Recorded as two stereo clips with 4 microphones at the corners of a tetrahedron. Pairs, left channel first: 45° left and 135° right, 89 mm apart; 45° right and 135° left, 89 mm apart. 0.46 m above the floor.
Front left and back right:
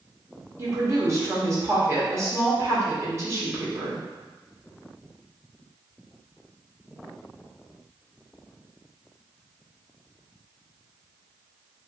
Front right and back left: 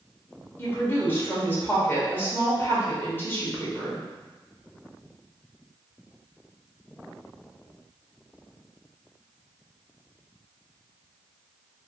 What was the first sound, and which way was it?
A woman speaking, 100° right.